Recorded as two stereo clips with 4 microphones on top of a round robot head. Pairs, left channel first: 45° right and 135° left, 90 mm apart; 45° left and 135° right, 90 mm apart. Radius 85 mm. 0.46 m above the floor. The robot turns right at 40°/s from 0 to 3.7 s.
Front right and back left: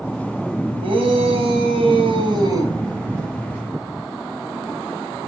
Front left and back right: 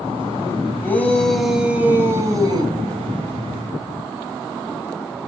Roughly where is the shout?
Left.